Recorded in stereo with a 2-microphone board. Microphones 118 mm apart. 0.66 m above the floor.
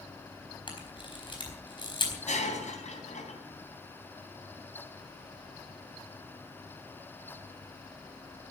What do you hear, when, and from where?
0.7 s a camera shutter: 40° left (ahead or behind), 4 m
2.3 s breaking glass: 70° left (ahead or behind), 3.5 m